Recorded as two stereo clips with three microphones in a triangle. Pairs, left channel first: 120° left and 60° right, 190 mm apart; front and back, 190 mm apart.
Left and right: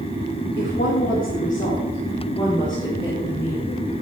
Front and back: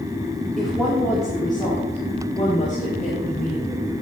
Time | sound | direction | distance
0.6 | a woman speaking | 90° left | 3 m